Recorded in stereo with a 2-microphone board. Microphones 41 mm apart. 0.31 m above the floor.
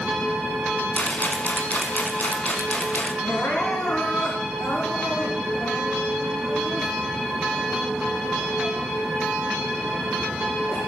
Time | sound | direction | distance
0.9 | a rattle | 45° left (ahead or behind) | 1.6 m
3.2 | crying | 65° left (ahead or behind) | 4 m